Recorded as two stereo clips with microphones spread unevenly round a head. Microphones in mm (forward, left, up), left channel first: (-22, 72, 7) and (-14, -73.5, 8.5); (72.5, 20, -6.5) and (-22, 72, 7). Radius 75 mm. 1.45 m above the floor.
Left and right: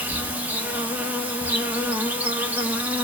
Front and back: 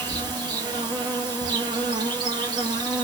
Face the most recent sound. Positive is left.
turn(degrees=-165)